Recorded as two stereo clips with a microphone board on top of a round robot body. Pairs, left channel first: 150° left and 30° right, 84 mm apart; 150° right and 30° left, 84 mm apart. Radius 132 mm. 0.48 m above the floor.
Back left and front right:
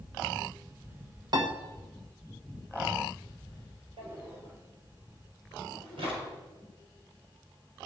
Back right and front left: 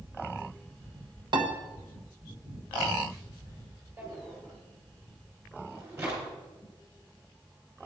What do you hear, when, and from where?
1.3 s a piano: 5° left, 1.4 m
4.0 s a drawer: 35° right, 5.5 m